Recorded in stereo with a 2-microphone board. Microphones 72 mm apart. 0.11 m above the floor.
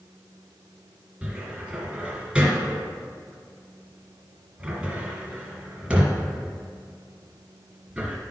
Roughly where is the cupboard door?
Centre.